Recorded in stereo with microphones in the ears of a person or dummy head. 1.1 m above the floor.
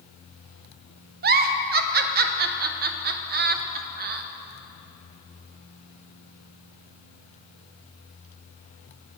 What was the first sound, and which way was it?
A giggle, 45° right (ahead or behind).